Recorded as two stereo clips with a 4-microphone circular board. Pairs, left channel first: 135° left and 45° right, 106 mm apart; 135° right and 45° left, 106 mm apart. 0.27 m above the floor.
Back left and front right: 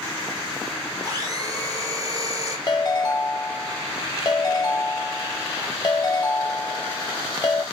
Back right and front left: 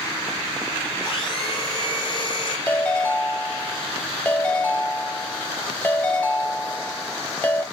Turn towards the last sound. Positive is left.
turn(degrees=160)